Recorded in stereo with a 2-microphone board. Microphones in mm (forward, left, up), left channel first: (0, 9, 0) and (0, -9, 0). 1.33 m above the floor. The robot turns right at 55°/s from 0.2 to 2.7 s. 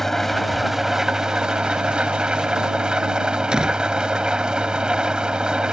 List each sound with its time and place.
0.0 s an engine running: 165° left; by 5.7 s 55° right
3.5 s a door slam: 45° right (ahead or behind)